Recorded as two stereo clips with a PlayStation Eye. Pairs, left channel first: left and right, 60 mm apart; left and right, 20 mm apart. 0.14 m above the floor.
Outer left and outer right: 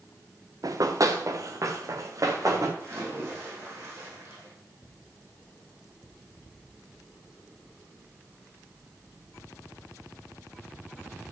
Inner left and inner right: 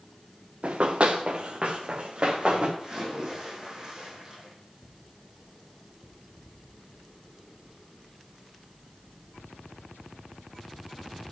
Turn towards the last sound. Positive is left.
turn(degrees=-45)  # may be behind; listen again after turning